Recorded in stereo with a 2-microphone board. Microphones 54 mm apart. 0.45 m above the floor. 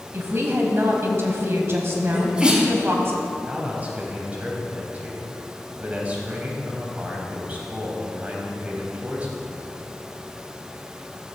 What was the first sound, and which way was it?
A woman speaking, 50° right (ahead or behind).